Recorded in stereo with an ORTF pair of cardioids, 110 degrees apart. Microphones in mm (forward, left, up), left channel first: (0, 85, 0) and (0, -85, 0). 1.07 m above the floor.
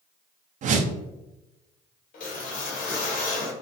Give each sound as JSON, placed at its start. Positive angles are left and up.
{"t": 0.6, "sound": "a whoosh", "azimuth_deg": -50, "distance_m": 0.5}
{"t": 2.1, "sound": "a whoosh", "azimuth_deg": 55, "distance_m": 0.9}